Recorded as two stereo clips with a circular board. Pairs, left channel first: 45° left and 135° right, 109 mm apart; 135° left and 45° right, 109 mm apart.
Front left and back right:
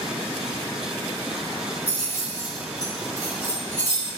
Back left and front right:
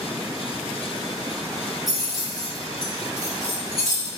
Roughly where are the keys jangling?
Ahead left.